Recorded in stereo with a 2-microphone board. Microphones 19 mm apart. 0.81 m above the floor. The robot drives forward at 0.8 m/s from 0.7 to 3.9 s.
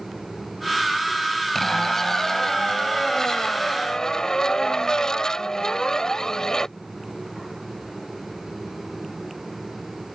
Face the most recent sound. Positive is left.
turn(degrees=40)  # may be behind; listen again after turning